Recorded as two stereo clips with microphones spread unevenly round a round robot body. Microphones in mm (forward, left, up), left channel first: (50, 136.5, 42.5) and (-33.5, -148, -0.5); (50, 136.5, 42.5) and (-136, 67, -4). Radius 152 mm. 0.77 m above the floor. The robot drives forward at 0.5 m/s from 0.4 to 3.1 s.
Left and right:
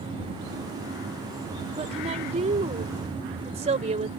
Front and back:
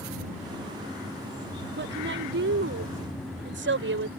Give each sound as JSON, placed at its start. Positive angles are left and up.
{"t": 1.8, "sound": "a woman speaking", "azimuth_deg": -175}